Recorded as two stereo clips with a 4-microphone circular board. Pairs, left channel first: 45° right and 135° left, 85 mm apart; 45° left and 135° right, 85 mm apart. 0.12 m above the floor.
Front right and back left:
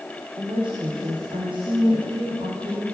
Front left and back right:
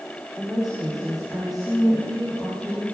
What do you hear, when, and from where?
0.4 s a woman speaking: 145° left, 6.5 m